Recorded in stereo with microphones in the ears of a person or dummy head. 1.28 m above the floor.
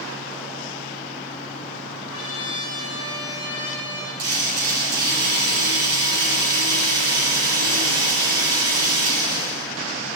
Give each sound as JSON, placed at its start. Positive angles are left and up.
{"t": 2.1, "sound": "a trumpet", "side_deg": 45, "distance_m": 6.0}
{"t": 4.2, "sound": "a drill", "side_deg": -65, "distance_m": 8.0}